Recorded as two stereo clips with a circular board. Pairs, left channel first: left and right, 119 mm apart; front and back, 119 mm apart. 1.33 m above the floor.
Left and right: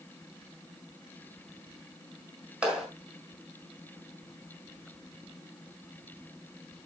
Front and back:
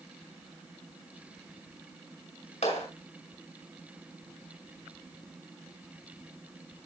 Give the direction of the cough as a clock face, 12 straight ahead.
No cough in this recording.